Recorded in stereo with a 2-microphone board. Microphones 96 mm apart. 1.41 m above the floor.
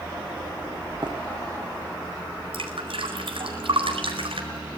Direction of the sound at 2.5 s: 80° right.